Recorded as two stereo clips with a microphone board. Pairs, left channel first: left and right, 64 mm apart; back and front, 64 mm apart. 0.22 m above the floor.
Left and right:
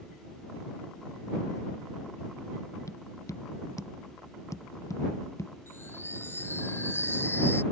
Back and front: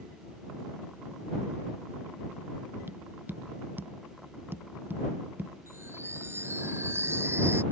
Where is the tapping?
55° left.